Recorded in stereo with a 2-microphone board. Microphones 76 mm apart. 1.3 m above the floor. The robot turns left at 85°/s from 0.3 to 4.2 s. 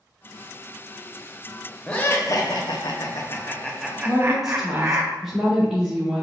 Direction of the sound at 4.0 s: 20° right (ahead or behind).